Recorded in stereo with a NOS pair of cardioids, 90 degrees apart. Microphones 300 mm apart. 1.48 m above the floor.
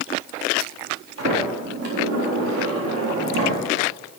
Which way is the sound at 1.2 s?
60° right.